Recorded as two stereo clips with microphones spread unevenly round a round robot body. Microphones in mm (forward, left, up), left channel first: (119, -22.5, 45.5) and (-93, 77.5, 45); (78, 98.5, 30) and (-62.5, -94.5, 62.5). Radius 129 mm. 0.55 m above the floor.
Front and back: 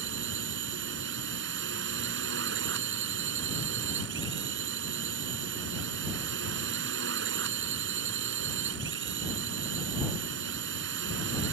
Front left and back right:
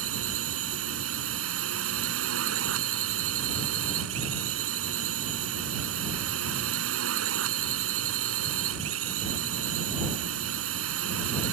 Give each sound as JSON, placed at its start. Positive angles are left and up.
{"t": 0.0, "sound": "a drone", "azimuth_deg": -160}